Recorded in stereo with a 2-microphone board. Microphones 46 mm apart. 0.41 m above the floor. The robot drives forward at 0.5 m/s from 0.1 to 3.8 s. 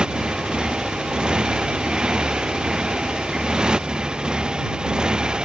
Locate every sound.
0.0 s a motorcycle: 15° right (ahead or behind)